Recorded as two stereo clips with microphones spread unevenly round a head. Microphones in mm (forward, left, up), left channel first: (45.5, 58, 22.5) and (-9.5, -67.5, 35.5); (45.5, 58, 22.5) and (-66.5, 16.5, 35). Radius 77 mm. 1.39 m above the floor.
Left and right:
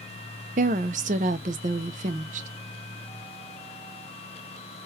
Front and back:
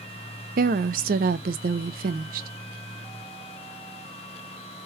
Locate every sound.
0.6 s a woman speaking: 155° right, 0.6 m